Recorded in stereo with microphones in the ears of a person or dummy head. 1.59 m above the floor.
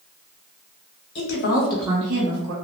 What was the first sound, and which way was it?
A woman speaking, 65° left (ahead or behind).